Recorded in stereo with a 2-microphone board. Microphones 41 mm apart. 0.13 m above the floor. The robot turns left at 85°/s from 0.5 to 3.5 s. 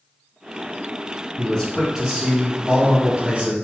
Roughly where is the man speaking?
Ahead left.